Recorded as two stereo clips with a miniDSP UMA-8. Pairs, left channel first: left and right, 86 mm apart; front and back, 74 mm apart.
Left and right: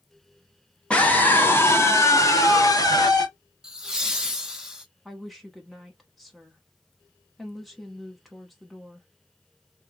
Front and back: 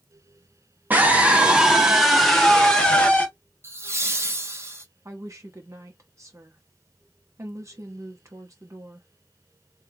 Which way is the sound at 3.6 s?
170° right.